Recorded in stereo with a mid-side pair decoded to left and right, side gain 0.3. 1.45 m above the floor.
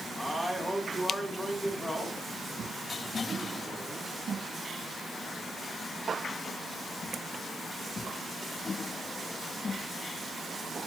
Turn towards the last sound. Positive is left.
turn(degrees=-5)